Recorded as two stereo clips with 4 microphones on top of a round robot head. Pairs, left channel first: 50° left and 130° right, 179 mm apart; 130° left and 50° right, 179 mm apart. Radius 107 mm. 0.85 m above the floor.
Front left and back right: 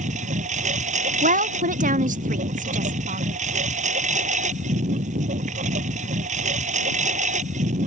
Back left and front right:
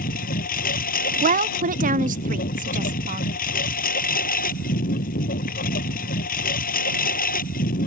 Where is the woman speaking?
90° right.